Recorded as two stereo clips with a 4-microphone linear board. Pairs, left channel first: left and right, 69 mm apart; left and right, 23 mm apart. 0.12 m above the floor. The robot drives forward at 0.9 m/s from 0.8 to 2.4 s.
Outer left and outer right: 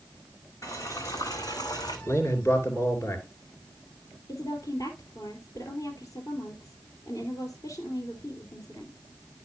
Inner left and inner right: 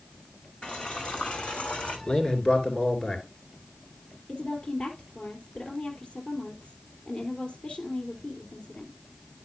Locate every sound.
0.6 s boiling: 55° left (ahead or behind), 3 m; by 2.0 s 75° left (ahead or behind), 2.5 m
2.1 s a man speaking: 45° left (ahead or behind), 2 m; by 3.2 s 40° left (ahead or behind), 2 m
4.3 s a woman speaking: 60° left (ahead or behind), 2.5 m